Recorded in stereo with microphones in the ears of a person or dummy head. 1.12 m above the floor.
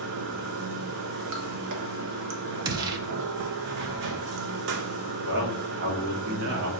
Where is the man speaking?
60° right (ahead or behind), 1.1 m.